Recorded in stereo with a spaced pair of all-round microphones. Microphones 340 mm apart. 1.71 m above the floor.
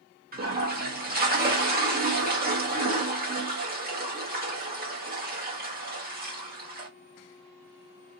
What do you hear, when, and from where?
0.3 s a toilet flushing: 25° right (ahead or behind), 1.0 m